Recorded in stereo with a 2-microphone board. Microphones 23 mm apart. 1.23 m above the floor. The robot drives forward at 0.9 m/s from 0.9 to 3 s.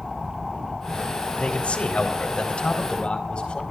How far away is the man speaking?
About 3.5 m.